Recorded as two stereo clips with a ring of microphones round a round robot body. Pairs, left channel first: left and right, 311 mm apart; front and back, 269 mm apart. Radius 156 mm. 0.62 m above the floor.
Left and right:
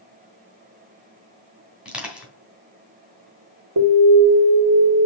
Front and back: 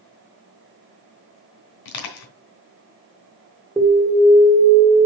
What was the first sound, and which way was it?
Crushing, 5° right.